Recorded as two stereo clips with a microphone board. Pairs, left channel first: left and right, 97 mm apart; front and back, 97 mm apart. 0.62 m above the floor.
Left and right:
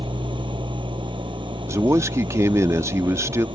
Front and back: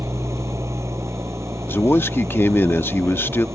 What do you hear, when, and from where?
0.0 s an engine running: 120° right
1.7 s a man speaking: 50° right